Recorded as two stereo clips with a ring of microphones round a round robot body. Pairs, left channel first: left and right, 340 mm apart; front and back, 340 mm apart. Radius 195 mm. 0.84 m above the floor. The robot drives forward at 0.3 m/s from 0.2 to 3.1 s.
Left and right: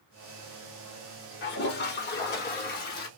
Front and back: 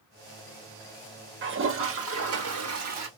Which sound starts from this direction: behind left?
A toilet flushing, at 1.4 s.